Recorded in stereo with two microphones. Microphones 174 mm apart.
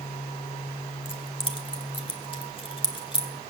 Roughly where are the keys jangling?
Left.